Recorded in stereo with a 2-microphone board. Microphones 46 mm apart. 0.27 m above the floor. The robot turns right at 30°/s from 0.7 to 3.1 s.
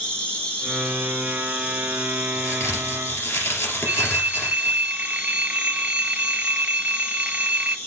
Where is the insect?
25° left, 4.5 m; by 7.9 s 100° left, 4.5 m.